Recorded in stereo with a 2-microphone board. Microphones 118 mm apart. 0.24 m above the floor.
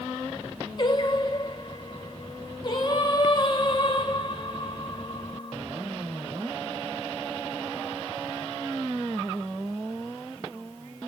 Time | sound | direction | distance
0.8 | singing | 40° left (ahead or behind) | 1.8 m